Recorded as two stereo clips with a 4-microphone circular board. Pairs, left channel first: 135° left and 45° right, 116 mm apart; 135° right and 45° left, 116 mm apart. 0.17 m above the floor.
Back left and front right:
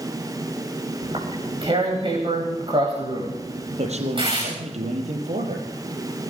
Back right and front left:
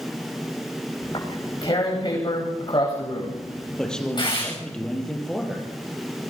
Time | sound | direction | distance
1.0 | tearing paper | 90° right | 10 m
3.8 | a man speaking | 50° right | 5 m